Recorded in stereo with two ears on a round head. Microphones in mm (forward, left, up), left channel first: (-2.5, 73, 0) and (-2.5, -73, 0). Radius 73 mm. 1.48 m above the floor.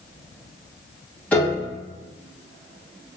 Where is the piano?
10° left (ahead or behind), 1.1 m.